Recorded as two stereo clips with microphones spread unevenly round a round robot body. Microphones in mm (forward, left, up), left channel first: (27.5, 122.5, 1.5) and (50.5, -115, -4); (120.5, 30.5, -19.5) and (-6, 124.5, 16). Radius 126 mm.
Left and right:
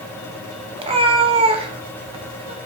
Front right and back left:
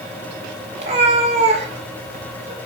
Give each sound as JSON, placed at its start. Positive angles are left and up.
{"t": 0.8, "sound": "a cat meowing", "azimuth_deg": -155, "distance_m": 1.0}